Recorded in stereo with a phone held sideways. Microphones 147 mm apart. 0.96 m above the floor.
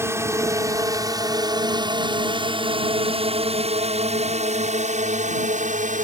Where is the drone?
15° right (ahead or behind); by 6.0 s 60° right (ahead or behind).